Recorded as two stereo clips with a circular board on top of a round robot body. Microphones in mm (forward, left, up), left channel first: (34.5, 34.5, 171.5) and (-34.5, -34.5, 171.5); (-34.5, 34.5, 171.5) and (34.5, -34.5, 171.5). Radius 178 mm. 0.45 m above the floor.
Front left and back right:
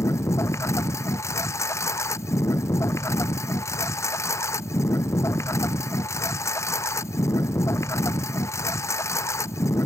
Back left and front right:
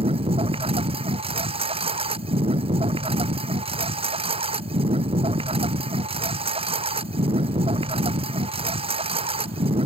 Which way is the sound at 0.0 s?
20° right.